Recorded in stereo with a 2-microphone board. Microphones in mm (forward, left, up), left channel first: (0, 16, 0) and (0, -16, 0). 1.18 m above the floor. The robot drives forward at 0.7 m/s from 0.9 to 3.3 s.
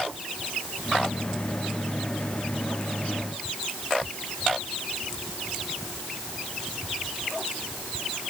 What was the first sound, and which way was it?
Only background noise.